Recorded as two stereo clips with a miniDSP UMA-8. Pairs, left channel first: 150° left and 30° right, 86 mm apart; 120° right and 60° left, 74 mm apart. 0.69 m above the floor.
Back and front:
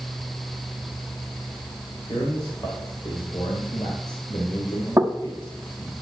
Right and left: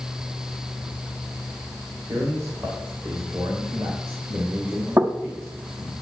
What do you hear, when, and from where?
2.1 s a man speaking: 115° left, 2.5 m
5.0 s knocking: 25° left, 1.2 m